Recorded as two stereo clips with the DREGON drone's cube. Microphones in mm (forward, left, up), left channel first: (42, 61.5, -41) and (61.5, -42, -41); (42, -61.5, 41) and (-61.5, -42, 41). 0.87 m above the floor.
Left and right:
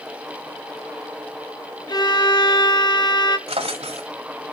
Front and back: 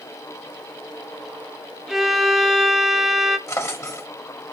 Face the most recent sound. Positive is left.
turn(degrees=-70)